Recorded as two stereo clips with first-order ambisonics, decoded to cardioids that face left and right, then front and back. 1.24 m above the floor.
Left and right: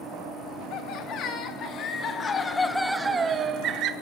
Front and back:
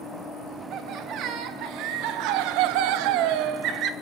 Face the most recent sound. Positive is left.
turn(degrees=-135)